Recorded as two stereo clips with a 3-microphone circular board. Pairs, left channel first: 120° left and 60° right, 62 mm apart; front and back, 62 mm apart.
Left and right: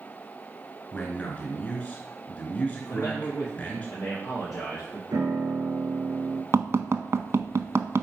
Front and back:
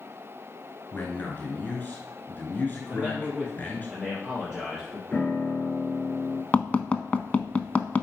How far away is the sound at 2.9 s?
About 3 m.